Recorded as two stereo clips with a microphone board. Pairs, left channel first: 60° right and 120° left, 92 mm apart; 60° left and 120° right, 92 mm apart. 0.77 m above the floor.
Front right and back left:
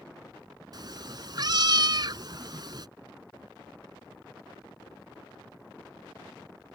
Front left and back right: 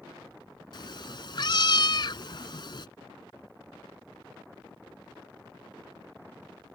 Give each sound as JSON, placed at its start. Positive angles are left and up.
{"t": 0.7, "sound": "a cat meowing", "azimuth_deg": 90}